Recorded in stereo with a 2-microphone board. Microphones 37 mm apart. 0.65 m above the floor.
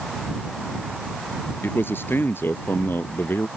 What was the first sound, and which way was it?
A man speaking, 85° left.